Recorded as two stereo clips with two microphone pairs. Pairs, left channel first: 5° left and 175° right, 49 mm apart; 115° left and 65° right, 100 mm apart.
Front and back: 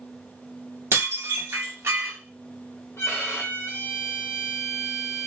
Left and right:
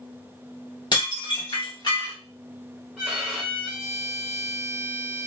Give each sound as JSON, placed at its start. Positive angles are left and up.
{"t": 0.9, "sound": "dishes clattering", "azimuth_deg": 155, "distance_m": 1.2}
{"t": 3.0, "sound": "a violin", "azimuth_deg": 15, "distance_m": 1.0}